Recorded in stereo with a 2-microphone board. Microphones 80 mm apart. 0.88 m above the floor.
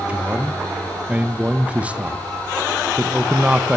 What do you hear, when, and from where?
0.1 s a man speaking: 15° right (ahead or behind), 0.7 m